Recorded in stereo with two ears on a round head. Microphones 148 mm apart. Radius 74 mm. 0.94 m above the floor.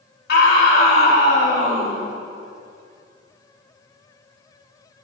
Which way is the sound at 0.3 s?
60° left (ahead or behind).